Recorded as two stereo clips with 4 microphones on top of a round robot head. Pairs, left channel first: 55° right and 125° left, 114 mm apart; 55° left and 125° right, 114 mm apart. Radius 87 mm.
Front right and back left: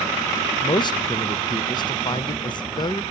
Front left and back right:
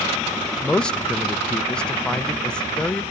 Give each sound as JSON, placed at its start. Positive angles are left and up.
{"t": 0.6, "sound": "a man speaking", "azimuth_deg": -25, "distance_m": 0.6}